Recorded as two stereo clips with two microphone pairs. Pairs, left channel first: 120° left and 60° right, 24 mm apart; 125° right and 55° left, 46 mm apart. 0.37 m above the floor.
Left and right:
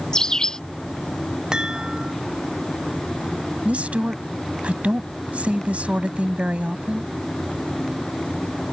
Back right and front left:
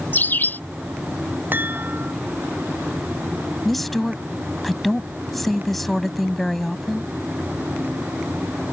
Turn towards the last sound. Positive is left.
turn(degrees=-40)